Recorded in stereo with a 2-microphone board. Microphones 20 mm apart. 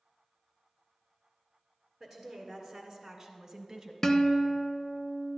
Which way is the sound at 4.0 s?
20° left (ahead or behind).